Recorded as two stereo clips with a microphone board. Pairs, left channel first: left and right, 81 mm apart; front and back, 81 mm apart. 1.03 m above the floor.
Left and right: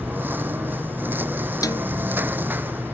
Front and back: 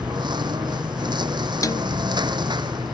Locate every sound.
0.0 s a lawn mower: 155° right
1.6 s a snare drum: 45° left